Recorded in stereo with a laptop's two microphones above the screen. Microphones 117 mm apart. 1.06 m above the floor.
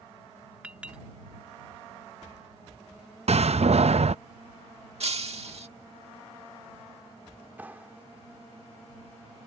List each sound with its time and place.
0.6 s a clink: 10° right (ahead or behind)
3.3 s a door slam: 60° right (ahead or behind)
5.0 s breaking glass: 60° right (ahead or behind)
7.6 s a clap: 15° right (ahead or behind)